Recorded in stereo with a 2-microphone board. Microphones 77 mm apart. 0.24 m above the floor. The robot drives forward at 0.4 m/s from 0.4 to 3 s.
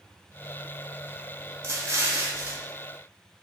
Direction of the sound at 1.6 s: 35° right (ahead or behind).